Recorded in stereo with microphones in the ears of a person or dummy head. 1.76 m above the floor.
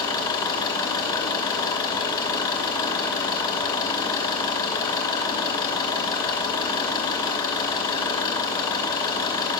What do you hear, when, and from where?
0.0 s an engine running: 25° left (ahead or behind), 2.5 m